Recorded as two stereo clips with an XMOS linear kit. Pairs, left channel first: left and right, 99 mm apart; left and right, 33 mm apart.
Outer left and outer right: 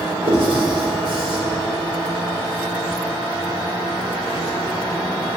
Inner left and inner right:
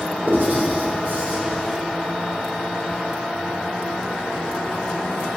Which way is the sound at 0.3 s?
80° right.